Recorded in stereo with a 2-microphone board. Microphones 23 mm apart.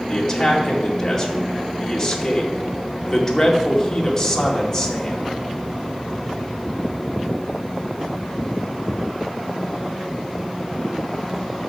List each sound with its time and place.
0.1 s a man speaking: 15° left (ahead or behind), 2.5 m